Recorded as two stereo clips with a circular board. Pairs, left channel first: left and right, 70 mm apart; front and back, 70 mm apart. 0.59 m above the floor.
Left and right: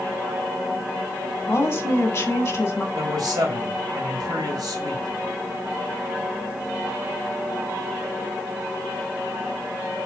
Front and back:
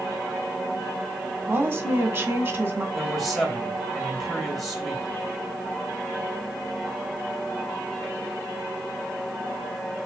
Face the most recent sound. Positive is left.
turn(degrees=-85)